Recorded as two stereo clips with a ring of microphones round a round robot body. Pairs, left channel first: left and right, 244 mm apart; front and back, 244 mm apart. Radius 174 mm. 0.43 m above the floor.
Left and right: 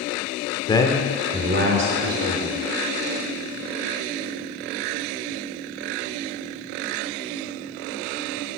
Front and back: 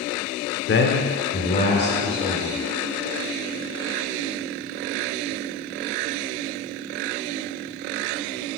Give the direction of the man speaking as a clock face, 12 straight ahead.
11 o'clock.